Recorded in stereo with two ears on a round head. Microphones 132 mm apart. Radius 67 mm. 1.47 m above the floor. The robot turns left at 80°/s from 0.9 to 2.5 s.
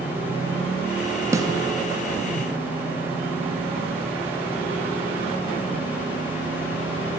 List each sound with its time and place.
1.3 s a snare drum: 20° right (ahead or behind), 3 m; by 1.5 s 30° right (ahead or behind), 3 m